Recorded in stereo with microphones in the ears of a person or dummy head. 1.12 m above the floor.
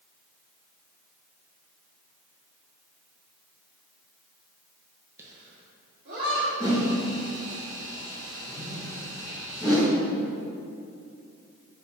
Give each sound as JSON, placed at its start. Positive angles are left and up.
{"t": 5.2, "sound": "laughter", "side_deg": -10, "distance_m": 0.5}
{"t": 6.6, "sound": "a whoosh", "side_deg": 20, "distance_m": 1.8}